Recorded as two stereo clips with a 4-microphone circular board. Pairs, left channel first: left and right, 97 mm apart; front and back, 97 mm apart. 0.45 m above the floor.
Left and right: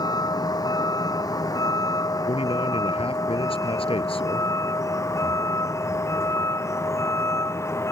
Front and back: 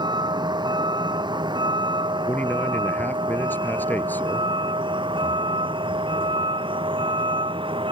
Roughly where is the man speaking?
Left.